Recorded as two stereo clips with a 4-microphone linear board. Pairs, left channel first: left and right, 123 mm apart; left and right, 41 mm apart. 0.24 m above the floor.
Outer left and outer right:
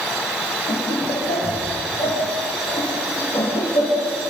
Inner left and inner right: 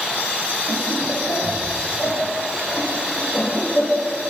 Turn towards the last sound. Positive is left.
turn(degrees=45)  # may be behind; listen again after turning